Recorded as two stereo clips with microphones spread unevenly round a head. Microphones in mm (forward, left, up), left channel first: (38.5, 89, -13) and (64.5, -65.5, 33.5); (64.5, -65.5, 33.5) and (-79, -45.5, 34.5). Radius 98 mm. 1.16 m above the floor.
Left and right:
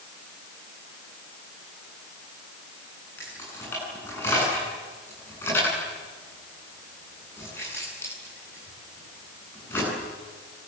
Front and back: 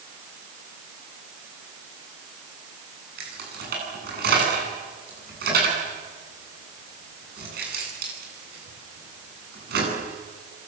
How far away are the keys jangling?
About 9.5 m.